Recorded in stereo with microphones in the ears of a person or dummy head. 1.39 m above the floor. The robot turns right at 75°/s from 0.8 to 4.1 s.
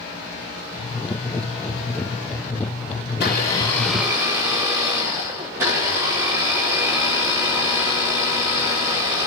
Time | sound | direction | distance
3.1 | a blender | 120° left | 3.5 m